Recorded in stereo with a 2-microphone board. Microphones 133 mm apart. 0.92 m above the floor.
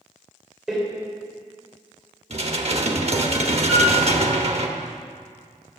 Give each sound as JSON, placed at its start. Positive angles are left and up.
{"t": 0.7, "sound": "a door slam", "side_deg": -5, "distance_m": 3.0}
{"t": 2.3, "sound": "dishes clattering", "side_deg": -50, "distance_m": 1.1}
{"t": 3.7, "sound": "a piano", "side_deg": -5, "distance_m": 5.0}